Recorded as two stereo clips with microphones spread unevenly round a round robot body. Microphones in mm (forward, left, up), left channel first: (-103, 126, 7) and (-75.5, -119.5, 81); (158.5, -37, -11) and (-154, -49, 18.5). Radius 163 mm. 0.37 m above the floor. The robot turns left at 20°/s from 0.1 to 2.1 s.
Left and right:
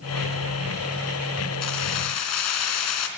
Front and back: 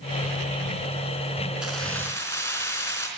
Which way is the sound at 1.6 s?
95° left.